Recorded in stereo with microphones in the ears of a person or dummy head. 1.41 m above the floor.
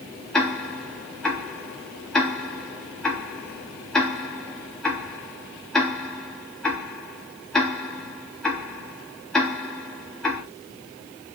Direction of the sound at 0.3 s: 5° left (ahead or behind).